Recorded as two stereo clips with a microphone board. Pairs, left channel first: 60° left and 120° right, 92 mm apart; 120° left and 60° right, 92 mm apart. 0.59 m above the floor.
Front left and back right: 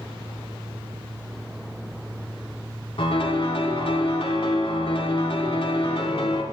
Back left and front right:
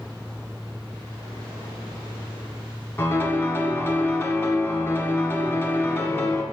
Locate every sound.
3.0 s a piano: 55° left, 1.0 m